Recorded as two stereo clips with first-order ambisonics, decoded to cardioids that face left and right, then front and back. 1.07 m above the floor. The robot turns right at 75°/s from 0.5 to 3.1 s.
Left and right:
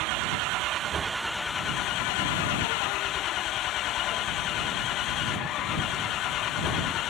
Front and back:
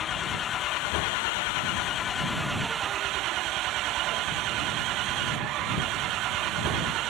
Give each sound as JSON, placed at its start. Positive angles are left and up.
{"t": 0.0, "sound": "an engine running", "azimuth_deg": -60}